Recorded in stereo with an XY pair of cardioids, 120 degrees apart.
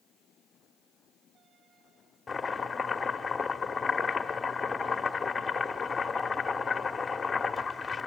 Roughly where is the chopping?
Ahead.